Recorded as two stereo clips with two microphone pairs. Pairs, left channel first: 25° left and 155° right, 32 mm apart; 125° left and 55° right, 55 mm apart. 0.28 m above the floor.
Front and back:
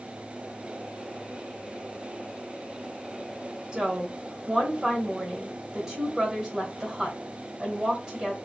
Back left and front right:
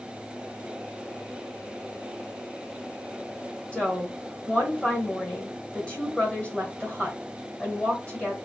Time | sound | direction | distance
3.7 | a woman speaking | 160° left | 1.4 m